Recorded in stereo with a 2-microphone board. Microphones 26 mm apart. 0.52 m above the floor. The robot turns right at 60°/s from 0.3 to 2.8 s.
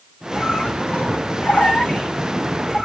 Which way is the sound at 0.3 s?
40° left.